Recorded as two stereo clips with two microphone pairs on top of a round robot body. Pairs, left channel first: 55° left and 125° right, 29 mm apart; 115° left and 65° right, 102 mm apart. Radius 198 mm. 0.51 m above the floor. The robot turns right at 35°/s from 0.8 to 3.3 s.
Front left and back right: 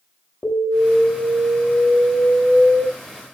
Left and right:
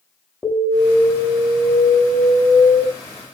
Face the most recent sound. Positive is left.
turn(degrees=125)